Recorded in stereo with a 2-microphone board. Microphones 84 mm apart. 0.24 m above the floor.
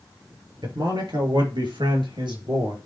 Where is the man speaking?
65° right (ahead or behind), 4 m; by 2.8 s 70° right (ahead or behind), 4 m.